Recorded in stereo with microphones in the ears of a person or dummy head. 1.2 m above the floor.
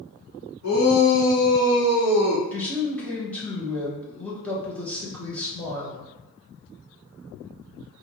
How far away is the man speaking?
About 0.9 m.